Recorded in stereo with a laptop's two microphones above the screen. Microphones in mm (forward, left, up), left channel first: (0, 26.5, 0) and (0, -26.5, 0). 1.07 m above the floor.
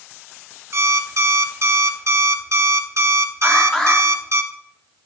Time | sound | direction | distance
0.7 | an alarm clock | 60° right (ahead or behind) | 0.9 m
3.4 | an alarm | 10° left (ahead or behind) | 2.5 m